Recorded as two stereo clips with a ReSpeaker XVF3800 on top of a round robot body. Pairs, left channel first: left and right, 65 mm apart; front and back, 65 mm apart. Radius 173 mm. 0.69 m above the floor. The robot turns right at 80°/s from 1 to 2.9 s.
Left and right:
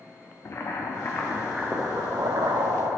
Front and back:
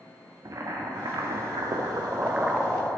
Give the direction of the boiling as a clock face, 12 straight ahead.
7 o'clock.